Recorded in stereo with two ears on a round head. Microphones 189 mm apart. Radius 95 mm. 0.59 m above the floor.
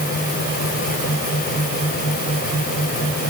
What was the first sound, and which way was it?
Only background noise.